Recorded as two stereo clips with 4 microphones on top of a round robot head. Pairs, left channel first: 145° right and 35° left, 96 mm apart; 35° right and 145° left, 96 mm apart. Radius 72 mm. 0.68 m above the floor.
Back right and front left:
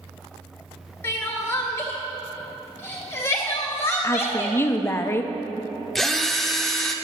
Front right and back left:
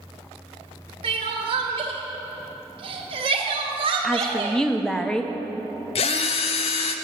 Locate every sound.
1.0 s crying: 155° left, 1.4 m
4.0 s a woman speaking: 115° right, 0.5 m
6.0 s a drill: 55° right, 0.6 m